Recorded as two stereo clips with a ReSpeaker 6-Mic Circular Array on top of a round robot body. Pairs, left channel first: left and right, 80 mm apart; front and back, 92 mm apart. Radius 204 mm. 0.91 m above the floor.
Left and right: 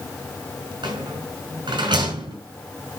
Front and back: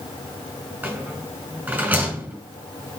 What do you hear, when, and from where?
0.8 s a rattle: 105° right, 5 m